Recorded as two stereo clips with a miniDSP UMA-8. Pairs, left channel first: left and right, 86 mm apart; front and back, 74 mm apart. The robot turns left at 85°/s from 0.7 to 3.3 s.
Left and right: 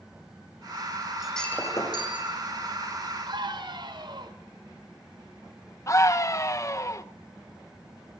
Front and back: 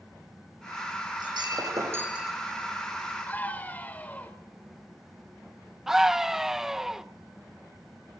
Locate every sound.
1.2 s breaking glass: 170° right, 8 m; by 2.3 s 90° left, 8 m
3.3 s a scream: 60° right, 4.5 m; by 4.3 s 65° right, 4.5 m
5.9 s a scream: 100° left, 0.8 m